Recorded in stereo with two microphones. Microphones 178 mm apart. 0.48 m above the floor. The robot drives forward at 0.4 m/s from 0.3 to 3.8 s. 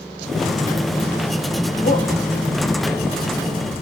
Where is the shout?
55° left (ahead or behind), 2.5 m.